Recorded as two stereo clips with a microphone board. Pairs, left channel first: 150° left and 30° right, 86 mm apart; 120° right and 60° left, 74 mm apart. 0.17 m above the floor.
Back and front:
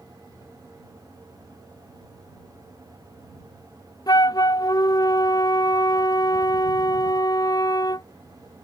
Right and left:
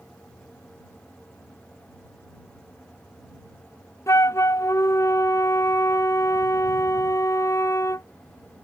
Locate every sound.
4.1 s a flute: 170° right